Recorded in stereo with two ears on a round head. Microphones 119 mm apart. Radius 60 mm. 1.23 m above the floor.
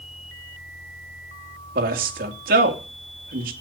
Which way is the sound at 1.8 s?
75° right (ahead or behind).